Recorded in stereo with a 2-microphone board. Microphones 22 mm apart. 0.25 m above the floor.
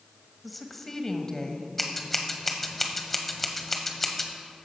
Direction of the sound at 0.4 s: Centre (ahead or behind).